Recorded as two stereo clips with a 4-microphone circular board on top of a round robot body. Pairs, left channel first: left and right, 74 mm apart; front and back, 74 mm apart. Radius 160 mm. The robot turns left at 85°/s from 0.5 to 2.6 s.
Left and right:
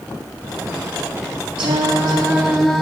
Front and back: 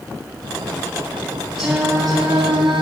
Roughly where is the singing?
Right.